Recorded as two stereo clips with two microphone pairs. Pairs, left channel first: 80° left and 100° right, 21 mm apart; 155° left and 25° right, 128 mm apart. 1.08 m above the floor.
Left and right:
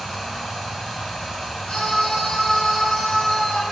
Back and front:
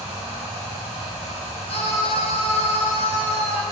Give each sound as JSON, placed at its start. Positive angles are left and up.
{"t": 0.0, "sound": "running water", "azimuth_deg": 15, "distance_m": 1.2}
{"t": 1.7, "sound": "a scream", "azimuth_deg": 115, "distance_m": 0.5}